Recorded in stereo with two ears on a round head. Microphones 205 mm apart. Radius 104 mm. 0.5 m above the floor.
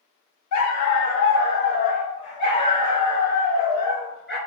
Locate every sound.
0.5 s a dog barking: 80° left, 0.8 m; by 4.4 s 5° left (ahead or behind), 2 m